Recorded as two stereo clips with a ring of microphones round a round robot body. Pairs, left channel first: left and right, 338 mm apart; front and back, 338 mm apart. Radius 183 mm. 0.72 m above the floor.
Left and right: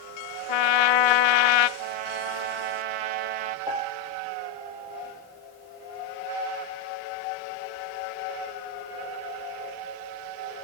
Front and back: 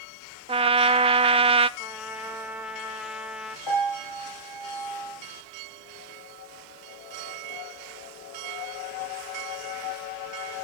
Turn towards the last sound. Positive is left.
turn(degrees=-10)